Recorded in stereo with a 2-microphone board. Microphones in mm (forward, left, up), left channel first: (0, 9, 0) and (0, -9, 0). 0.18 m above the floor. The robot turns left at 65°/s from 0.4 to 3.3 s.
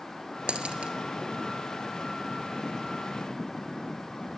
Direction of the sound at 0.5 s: 75° right (ahead or behind).